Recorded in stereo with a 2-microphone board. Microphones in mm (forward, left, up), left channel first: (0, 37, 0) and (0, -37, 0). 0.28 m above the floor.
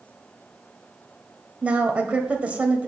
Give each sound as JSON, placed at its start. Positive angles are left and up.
{"t": 1.6, "sound": "a woman speaking", "side_deg": -15, "distance_m": 1.6}